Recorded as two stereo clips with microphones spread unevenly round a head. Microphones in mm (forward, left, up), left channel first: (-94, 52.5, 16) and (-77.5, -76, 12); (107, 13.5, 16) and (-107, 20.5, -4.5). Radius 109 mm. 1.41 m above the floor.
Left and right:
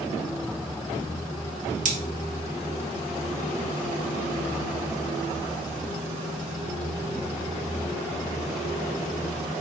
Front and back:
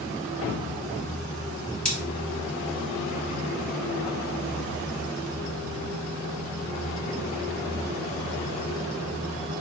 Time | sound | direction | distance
1.9 | cutlery clinking | 85° right | 1.0 m